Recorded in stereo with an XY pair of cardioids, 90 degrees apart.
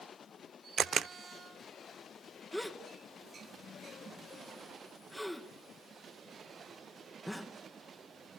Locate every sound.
0.8 s a camera shutter: 60° right, 0.6 m
2.5 s a gasp: straight ahead, 2.0 m